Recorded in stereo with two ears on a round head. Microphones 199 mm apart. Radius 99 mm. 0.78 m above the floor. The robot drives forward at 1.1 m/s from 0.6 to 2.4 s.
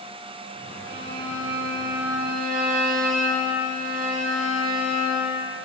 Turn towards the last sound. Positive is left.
turn(degrees=-45)  # may be behind; listen again after turning